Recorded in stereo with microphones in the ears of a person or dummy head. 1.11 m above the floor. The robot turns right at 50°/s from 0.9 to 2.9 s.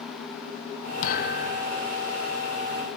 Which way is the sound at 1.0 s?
50° left.